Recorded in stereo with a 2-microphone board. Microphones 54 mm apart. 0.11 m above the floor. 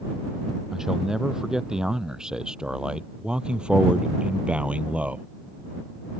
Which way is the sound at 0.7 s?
10° right (ahead or behind).